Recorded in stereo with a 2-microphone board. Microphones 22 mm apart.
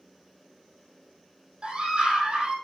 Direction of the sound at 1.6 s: 40° right (ahead or behind).